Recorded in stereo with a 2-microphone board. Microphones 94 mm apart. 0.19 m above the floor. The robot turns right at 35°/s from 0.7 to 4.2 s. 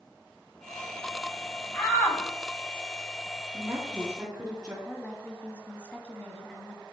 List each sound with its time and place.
1.7 s a shout: 20° left (ahead or behind), 1.5 m; by 2.2 s 25° left (ahead or behind), 1.5 m
3.5 s a woman speaking: 40° right (ahead or behind), 3 m; by 4.8 s 20° right (ahead or behind), 3 m
4.8 s a woman speaking: 15° left (ahead or behind), 1.1 m